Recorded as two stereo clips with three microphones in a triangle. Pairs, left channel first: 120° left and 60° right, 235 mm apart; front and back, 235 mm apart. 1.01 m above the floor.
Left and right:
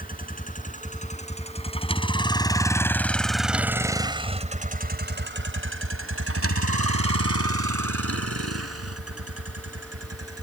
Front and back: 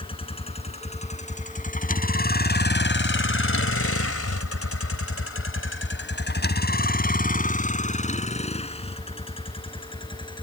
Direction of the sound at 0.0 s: 65° left.